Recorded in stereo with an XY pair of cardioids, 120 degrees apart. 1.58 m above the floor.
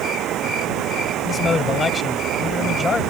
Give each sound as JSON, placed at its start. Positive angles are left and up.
{"t": 0.0, "sound": "running water", "azimuth_deg": -65}
{"t": 1.2, "sound": "a man speaking", "azimuth_deg": 30}